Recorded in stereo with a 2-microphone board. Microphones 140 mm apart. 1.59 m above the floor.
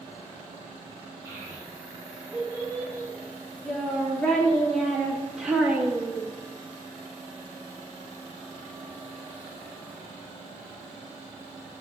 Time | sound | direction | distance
1.2 | a child speaking | 25° left (ahead or behind) | 4.5 m